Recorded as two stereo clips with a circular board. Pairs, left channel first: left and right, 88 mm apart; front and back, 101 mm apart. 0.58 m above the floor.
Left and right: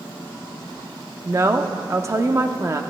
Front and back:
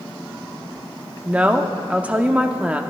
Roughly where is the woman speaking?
Right.